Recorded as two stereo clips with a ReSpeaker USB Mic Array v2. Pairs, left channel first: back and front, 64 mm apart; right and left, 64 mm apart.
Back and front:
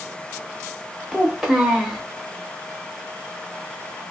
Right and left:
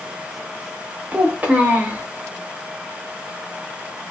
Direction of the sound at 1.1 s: 75° left.